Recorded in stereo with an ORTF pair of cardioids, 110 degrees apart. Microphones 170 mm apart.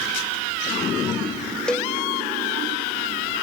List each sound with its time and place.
1.7 s a cowbell: 5° left